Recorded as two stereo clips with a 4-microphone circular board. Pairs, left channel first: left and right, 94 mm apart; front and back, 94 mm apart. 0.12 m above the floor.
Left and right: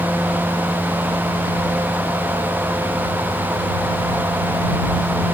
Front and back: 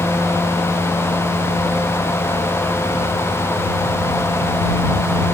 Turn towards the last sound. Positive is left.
No sound to turn to.